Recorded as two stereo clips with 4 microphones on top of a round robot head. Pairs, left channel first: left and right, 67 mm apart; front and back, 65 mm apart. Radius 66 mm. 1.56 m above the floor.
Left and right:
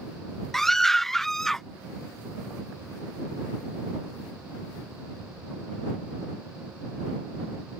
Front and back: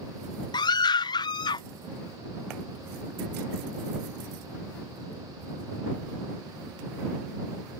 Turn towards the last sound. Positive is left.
turn(degrees=5)